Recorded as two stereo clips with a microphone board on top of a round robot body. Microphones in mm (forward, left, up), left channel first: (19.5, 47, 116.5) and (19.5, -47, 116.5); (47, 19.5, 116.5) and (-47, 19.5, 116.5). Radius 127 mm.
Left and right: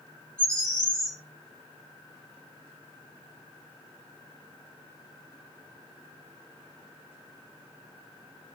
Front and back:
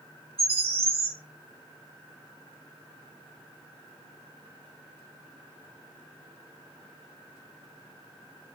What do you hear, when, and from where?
0.4 s a bird: 175° left, 2.5 m